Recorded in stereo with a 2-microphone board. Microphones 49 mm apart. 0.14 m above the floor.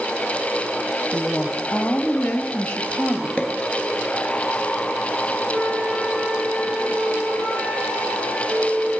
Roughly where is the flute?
Right.